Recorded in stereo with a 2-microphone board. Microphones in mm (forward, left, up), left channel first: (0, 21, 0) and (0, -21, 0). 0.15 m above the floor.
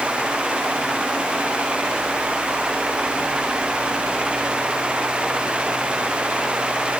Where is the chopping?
No chopping in this recording.